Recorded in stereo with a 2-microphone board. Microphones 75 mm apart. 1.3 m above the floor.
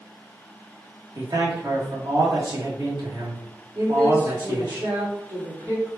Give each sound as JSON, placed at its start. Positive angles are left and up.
{"t": 1.1, "sound": "a man speaking", "side_deg": -65, "distance_m": 1.4}
{"t": 3.8, "sound": "a woman speaking", "side_deg": -75, "distance_m": 2.0}